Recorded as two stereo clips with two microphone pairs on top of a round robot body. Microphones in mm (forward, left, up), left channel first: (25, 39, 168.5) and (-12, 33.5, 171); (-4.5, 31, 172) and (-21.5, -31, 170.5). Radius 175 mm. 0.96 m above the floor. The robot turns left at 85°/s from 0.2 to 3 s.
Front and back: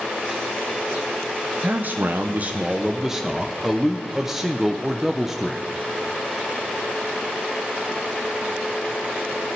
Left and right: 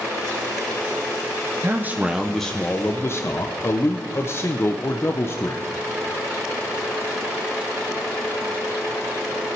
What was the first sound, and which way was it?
A man speaking, 135° right.